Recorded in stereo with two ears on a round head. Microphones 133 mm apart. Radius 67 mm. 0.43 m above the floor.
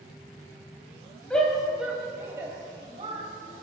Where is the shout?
5° left (ahead or behind), 3 m; by 3.2 s 40° right (ahead or behind), 3 m.